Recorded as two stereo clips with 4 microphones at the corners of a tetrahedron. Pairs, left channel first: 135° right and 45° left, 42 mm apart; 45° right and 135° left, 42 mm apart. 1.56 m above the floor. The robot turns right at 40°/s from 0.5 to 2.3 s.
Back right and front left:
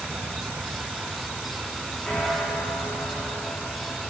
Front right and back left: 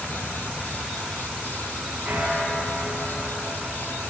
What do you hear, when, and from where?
0.0 s an insect: 75° left, 0.7 m; by 4.1 s 145° left, 0.7 m
2.0 s a bell: 160° left, 3.5 m; by 4.0 s 170° left, 3.5 m